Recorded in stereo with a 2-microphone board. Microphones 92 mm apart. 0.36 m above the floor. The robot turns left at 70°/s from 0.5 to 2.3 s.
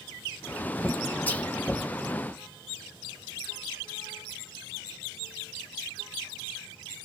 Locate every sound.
1.3 s whispering: 20° left (ahead or behind), 1.6 m; by 1.5 s 10° left (ahead or behind), 1.6 m